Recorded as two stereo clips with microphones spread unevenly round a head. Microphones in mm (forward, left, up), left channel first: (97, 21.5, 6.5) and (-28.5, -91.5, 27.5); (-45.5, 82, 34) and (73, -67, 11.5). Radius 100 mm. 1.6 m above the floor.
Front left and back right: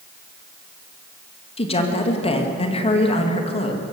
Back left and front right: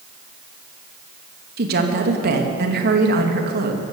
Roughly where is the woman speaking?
Ahead.